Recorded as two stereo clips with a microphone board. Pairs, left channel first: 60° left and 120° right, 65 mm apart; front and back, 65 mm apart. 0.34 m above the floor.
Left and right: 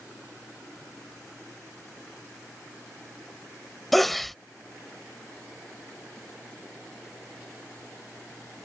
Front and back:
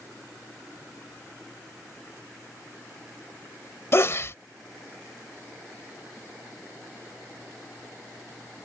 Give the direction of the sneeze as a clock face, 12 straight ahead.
1 o'clock.